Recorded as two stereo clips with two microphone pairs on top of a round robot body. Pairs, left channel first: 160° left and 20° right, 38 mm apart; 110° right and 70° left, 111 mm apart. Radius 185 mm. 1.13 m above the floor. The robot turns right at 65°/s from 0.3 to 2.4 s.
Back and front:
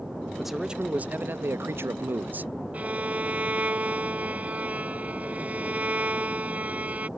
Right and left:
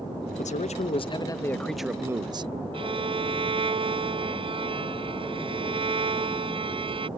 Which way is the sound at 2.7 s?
30° left.